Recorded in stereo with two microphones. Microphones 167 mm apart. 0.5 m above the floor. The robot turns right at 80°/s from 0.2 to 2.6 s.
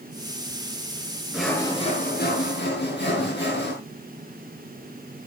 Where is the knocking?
I don't hear knocking.